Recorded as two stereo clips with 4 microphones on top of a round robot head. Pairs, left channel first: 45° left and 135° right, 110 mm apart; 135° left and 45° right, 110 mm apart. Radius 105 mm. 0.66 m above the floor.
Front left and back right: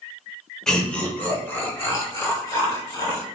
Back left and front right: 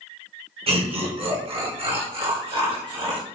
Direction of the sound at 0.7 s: 40° right.